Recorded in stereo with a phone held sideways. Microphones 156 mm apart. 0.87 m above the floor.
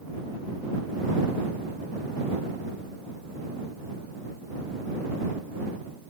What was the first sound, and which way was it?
Only background noise.